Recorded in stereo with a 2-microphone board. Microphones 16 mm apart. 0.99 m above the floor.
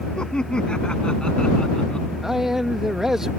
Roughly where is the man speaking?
Right.